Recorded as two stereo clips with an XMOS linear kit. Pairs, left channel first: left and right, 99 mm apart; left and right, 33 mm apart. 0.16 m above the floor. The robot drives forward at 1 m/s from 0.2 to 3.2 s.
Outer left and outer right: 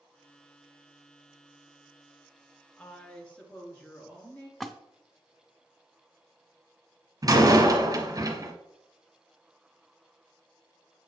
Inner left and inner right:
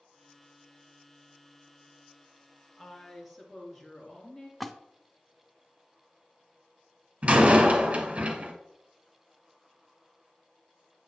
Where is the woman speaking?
15° left (ahead or behind), 1.7 m; by 4.5 s 10° left (ahead or behind), 2 m.